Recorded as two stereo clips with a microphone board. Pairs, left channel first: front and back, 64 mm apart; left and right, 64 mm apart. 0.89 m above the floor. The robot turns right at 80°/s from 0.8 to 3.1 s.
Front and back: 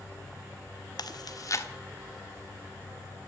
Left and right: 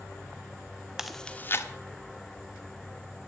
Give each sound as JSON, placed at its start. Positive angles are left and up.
{"t": 1.0, "sound": "chewing", "azimuth_deg": -10, "distance_m": 1.3}